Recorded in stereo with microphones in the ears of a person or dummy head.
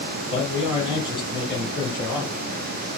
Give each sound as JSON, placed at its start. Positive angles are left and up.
{"t": 0.3, "sound": "a man speaking", "side_deg": -10, "distance_m": 3.0}